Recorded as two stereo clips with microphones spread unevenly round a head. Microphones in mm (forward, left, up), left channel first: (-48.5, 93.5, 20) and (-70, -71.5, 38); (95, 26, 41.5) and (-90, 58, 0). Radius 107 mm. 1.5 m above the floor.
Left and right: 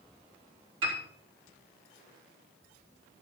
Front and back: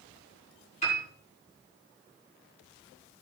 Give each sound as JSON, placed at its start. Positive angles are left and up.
{"t": 0.8, "sound": "a piano", "azimuth_deg": -70, "distance_m": 4.0}